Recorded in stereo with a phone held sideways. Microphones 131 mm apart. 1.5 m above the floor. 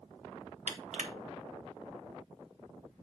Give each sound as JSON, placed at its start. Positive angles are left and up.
{"t": 0.7, "sound": "crushing", "side_deg": -75, "distance_m": 1.2}